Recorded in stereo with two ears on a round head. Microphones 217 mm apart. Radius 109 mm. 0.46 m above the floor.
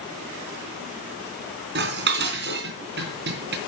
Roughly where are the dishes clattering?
Right.